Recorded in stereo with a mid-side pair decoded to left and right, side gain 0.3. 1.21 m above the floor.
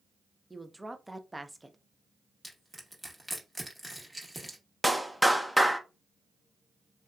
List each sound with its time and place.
0.5 s a woman speaking: 10° right, 0.6 m
2.4 s crushing: 10° right, 1.2 m
4.8 s a clap: 5° right, 0.6 m